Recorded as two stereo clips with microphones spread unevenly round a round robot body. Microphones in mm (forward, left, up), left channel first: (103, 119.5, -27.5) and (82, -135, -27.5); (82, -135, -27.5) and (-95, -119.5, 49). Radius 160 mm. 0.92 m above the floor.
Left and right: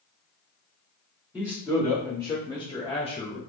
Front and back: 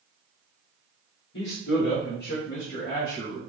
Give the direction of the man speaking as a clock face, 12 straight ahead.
12 o'clock.